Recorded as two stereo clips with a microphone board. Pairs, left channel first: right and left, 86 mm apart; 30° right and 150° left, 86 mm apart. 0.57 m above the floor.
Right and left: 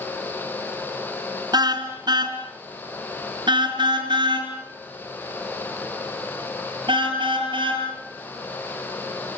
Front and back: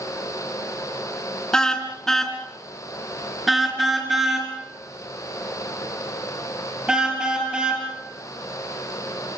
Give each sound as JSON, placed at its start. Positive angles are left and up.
{"t": 1.5, "sound": "a car horn", "azimuth_deg": 50, "distance_m": 3.0}